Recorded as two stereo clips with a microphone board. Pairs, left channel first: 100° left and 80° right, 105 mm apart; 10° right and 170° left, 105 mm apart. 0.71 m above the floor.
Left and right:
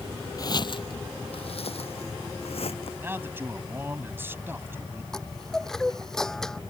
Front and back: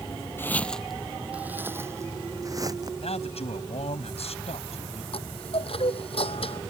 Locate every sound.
0.4 s footsteps: 50° left; by 2.9 s 120° left
3.0 s a man speaking: 10° right
5.1 s a chime: 15° left